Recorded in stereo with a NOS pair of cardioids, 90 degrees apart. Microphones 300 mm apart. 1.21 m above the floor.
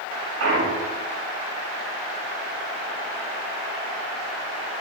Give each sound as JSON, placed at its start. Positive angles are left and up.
{"t": 0.4, "sound": "a clunk", "azimuth_deg": -65, "distance_m": 3.0}